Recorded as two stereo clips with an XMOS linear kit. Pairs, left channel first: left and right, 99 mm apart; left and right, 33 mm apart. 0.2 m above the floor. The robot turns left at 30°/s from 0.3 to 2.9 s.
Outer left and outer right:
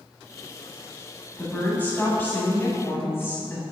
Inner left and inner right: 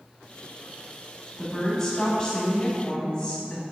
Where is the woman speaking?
15° left (ahead or behind), 1.1 m; by 3.6 s 25° left (ahead or behind), 1.1 m.